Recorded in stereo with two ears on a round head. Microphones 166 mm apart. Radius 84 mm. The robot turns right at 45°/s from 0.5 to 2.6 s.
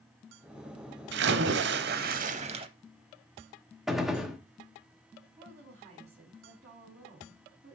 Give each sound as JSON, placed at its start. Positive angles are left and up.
{"t": 1.1, "sound": "a splash", "azimuth_deg": -100, "distance_m": 0.7}
{"t": 3.9, "sound": "a gunshot", "side_deg": 0, "distance_m": 1.0}
{"t": 5.4, "sound": "a woman speaking", "side_deg": -35, "distance_m": 4.0}